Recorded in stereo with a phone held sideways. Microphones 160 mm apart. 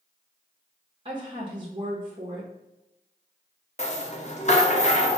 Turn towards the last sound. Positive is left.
turn(degrees=45)  # may be behind; listen again after turning